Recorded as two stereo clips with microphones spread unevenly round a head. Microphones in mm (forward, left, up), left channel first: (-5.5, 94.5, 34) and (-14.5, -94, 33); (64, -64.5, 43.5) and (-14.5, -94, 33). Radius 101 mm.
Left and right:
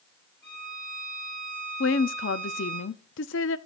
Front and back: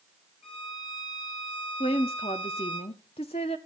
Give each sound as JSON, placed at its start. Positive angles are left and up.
{"t": 0.4, "sound": "a violin", "azimuth_deg": 20, "distance_m": 7.5}
{"t": 1.8, "sound": "a woman speaking", "azimuth_deg": 60, "distance_m": 0.6}